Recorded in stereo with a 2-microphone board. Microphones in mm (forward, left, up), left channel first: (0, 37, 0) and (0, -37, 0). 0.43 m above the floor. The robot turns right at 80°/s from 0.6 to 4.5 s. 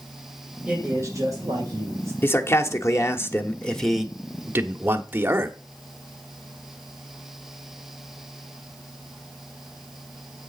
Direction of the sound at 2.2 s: 40° left.